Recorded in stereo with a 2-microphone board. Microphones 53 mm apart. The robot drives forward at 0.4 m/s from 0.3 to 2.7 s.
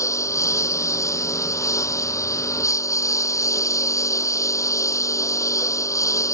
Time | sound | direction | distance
0.0 | a lawn mower | 75° left (ahead or behind) | ?